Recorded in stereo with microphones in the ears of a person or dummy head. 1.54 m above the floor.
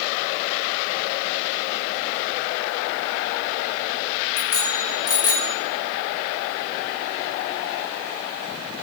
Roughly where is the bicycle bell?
Left.